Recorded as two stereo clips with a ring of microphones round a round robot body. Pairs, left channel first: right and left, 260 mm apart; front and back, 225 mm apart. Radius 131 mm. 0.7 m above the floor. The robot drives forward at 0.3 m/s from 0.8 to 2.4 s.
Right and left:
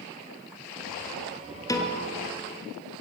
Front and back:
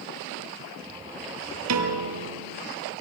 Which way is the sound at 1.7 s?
165° right.